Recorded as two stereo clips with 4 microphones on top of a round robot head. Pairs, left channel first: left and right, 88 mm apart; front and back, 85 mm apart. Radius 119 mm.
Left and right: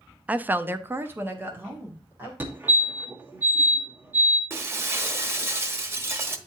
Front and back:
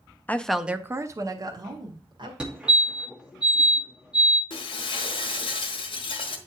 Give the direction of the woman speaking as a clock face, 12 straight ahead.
1 o'clock.